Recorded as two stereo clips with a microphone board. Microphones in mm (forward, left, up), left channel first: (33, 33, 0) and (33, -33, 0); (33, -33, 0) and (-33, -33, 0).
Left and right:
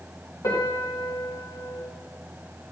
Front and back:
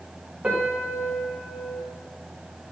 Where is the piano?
110° left, 1.3 m.